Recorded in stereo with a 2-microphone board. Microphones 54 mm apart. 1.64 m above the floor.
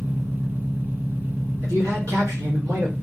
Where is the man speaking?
80° right, 1.2 m.